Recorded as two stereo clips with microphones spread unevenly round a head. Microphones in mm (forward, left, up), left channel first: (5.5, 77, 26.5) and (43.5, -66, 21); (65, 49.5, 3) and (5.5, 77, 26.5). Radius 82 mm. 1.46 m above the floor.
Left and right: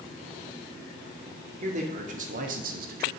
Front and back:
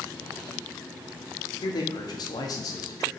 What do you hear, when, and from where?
1.6 s a man speaking: 30° right, 1.6 m; by 3.1 s 60° right, 0.9 m